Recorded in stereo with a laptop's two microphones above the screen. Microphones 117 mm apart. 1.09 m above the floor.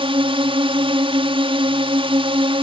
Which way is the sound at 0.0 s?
50° right (ahead or behind).